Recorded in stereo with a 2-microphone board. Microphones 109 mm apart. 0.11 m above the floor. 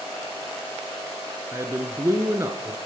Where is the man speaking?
25° right (ahead or behind), 1.3 m.